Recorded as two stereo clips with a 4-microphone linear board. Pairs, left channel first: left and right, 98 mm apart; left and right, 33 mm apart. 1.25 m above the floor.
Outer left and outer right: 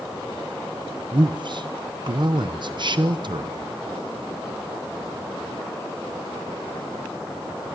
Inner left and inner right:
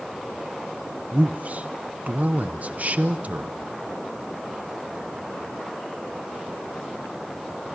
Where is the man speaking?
50° right (ahead or behind), 0.9 m.